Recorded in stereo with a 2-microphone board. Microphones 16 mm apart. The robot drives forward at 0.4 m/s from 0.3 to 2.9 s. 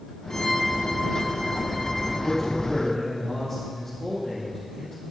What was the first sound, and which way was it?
A violin, 45° left (ahead or behind).